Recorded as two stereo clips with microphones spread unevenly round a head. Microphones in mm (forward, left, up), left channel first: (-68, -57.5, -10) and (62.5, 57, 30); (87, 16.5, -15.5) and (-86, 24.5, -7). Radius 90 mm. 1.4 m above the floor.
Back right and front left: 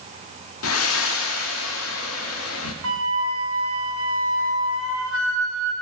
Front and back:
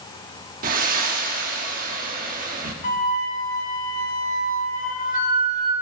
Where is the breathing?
145° right, 1.5 m.